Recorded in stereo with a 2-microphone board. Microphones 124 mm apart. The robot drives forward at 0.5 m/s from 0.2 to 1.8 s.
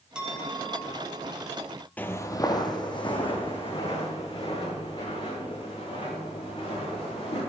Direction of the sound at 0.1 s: 5° right (ahead or behind).